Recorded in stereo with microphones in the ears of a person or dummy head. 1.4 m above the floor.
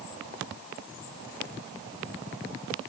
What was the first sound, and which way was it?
Only background noise.